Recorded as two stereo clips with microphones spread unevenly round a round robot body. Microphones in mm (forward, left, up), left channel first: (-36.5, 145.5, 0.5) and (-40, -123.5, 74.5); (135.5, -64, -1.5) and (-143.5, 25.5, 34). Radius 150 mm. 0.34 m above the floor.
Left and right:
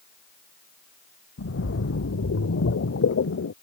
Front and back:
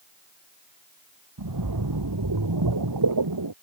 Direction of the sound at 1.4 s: 135° left.